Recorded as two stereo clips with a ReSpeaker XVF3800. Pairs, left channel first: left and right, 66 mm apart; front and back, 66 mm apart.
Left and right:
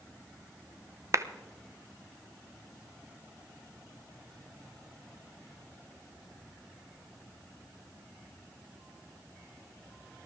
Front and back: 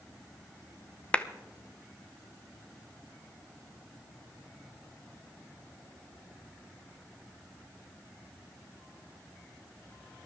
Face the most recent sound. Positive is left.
turn(degrees=-70)